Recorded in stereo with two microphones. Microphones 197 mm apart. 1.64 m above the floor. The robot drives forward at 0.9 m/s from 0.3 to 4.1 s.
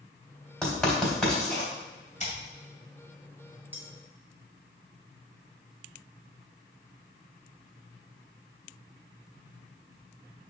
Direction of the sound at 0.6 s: 5° left (ahead or behind).